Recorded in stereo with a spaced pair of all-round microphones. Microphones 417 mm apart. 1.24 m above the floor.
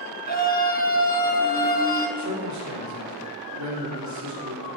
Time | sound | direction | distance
0.3 | a scream | 20° left (ahead or behind) | 1.4 m
2.2 | a man speaking | 40° right (ahead or behind) | 4 m